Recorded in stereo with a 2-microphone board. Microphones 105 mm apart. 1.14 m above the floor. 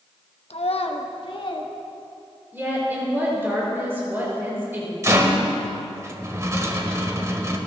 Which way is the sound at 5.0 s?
30° right (ahead or behind).